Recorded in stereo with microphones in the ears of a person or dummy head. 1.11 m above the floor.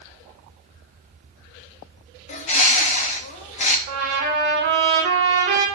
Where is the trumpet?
30° right (ahead or behind), 4 m.